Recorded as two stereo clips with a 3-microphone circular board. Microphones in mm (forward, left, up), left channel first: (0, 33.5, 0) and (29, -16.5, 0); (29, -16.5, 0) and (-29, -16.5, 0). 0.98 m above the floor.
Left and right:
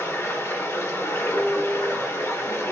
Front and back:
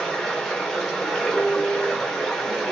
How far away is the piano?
About 1.4 m.